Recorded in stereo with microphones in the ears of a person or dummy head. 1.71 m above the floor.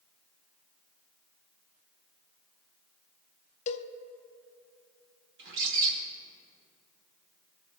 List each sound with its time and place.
3.7 s a cowbell: 40° left (ahead or behind), 0.6 m
5.4 s a bird: 65° right (ahead or behind), 2.0 m